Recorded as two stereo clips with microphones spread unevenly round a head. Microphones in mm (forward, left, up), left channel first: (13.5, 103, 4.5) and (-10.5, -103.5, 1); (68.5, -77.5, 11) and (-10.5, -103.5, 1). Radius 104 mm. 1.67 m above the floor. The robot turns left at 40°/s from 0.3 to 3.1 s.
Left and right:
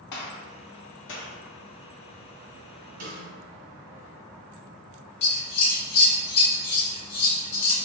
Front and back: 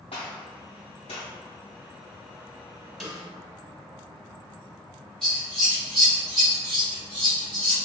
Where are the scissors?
105° left, 1.2 m.